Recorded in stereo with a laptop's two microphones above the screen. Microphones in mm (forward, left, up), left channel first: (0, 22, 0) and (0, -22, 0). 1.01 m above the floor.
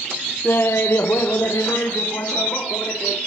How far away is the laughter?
About 0.7 m.